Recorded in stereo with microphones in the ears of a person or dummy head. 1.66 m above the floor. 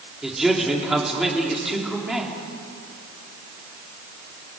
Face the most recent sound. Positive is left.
turn(degrees=5)  # may be behind; listen again after turning